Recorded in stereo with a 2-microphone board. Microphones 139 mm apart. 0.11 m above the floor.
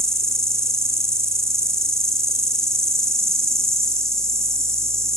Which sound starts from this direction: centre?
An insect, at 0.0 s.